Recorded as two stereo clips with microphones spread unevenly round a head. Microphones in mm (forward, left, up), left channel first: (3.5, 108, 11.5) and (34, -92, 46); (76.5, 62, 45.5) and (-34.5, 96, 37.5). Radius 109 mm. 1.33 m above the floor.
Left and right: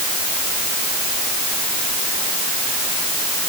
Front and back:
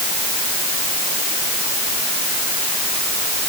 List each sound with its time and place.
Only background noise.